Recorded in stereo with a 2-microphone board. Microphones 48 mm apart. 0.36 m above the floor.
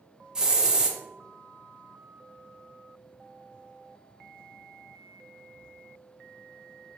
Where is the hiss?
15° right (ahead or behind), 0.5 m.